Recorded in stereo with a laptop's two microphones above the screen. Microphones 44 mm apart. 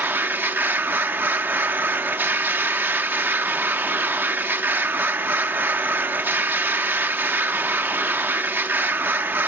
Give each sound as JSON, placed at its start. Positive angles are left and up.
{"t": 0.0, "sound": "a machine running", "side_deg": -55, "distance_m": 0.8}